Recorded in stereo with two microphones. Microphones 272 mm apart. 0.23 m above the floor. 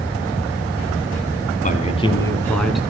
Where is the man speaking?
30° left (ahead or behind), 1.9 m; by 2.8 s centre (ahead or behind), 2 m.